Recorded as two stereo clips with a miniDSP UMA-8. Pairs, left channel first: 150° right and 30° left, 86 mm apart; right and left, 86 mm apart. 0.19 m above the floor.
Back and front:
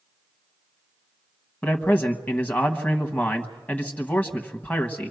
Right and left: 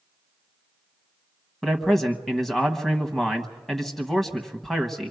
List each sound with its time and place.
1.6 s a man speaking: 175° right, 1.0 m